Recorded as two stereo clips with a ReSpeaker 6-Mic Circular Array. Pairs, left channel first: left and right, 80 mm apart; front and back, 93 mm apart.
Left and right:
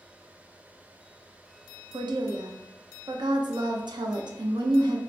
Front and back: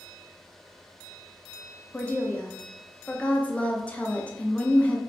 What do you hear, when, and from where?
1.9 s a woman speaking: 75° right, 0.5 m